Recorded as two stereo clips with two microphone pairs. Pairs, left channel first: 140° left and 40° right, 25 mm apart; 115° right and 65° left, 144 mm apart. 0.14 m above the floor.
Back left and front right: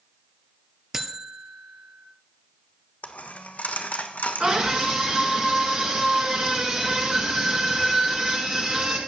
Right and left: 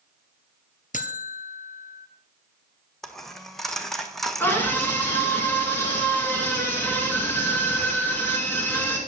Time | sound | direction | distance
0.9 | a buzzer | 110° right | 1.0 m
3.0 | a dropped coin | 155° left | 1.1 m
4.4 | a scream | 50° right | 2 m